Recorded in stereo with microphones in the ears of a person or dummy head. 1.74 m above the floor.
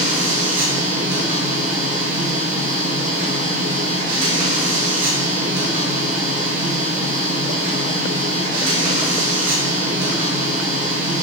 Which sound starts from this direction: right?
A machine running, at 0.0 s.